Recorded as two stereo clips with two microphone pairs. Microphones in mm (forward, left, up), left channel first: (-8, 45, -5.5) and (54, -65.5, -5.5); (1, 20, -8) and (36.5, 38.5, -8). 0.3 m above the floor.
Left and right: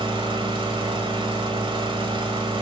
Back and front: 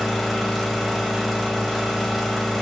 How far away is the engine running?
About 0.7 m.